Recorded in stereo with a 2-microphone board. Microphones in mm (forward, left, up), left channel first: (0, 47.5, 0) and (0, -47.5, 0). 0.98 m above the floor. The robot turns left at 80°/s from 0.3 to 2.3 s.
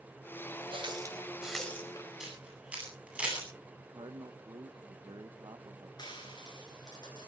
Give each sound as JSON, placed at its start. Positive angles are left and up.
{"t": 0.7, "sound": "a running tap", "side_deg": -65, "distance_m": 3.5}
{"t": 2.2, "sound": "a camera shutter", "side_deg": -5, "distance_m": 9.5}
{"t": 3.9, "sound": "a man speaking", "side_deg": -50, "distance_m": 0.9}
{"t": 6.0, "sound": "frying", "side_deg": 45, "distance_m": 10.0}